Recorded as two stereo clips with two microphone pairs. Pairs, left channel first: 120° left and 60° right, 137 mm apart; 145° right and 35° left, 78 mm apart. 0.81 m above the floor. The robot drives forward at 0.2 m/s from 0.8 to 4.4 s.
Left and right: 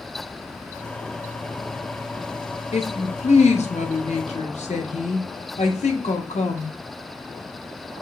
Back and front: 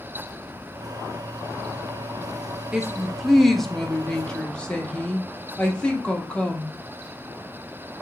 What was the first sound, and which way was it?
A woman speaking, 115° left.